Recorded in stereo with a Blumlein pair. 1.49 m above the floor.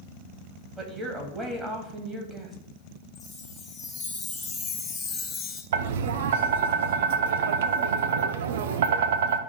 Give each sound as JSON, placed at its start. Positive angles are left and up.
{"t": 0.8, "sound": "a woman speaking", "azimuth_deg": -15, "distance_m": 2.5}
{"t": 3.1, "sound": "a chime", "azimuth_deg": 15, "distance_m": 1.4}
{"t": 5.7, "sound": "tapping", "azimuth_deg": -55, "distance_m": 0.6}